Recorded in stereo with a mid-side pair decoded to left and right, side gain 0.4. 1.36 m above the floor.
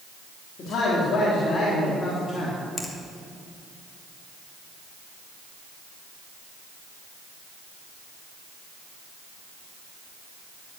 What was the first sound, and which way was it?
A man speaking, 65° left.